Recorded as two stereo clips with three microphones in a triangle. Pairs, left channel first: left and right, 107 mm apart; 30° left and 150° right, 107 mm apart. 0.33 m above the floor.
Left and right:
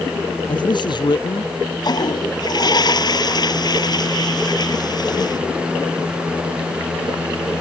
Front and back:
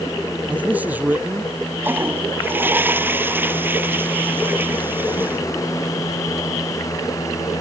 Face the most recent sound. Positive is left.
turn(degrees=140)